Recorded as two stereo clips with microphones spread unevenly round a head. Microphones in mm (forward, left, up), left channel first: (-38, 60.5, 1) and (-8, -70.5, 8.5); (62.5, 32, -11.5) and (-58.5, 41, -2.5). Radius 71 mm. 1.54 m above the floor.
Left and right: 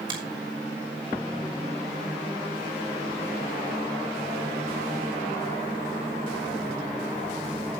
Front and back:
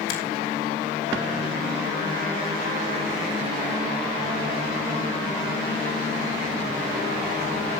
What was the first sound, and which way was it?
A finger snap, 15° right.